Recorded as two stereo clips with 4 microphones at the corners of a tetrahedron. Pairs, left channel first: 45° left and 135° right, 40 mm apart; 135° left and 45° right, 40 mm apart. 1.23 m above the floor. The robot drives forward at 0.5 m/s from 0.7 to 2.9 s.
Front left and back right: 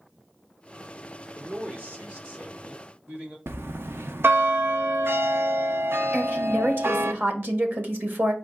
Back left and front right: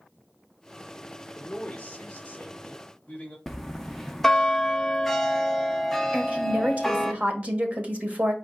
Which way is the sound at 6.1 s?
100° right.